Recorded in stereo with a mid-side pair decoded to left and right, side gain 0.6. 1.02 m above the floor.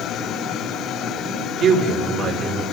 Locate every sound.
1.6 s a man speaking: 50° right, 4 m